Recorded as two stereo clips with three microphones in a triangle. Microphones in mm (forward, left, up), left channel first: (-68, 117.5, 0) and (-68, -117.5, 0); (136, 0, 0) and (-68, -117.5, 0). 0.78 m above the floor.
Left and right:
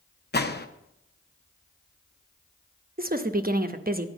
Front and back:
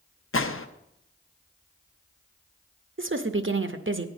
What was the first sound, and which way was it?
A gunshot, 50° left.